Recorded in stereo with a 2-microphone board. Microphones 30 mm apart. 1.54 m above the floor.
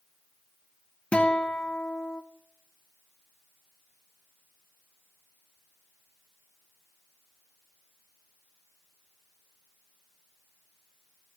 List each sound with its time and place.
1.1 s a guitar: 45° left (ahead or behind), 0.8 m